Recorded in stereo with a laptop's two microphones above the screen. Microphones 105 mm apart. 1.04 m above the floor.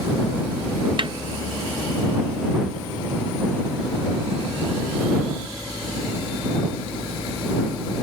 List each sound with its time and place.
1.0 s a snare drum: 55° right (ahead or behind)